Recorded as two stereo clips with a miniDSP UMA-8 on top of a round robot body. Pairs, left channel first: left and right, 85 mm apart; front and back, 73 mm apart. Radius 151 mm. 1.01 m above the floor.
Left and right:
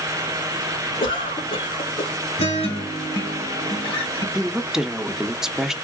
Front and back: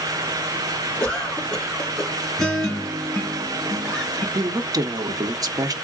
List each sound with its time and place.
1.0 s a cough: 75° left, 3 m
2.4 s a guitar: 80° left, 1.5 m
4.3 s a woman speaking: 175° right, 0.9 m